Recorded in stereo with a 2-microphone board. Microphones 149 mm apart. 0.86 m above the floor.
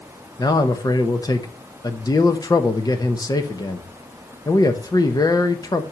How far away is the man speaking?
About 0.9 m.